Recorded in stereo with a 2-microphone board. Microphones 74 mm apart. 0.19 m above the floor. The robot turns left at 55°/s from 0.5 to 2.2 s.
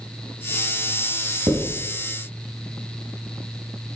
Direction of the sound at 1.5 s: 55° right (ahead or behind).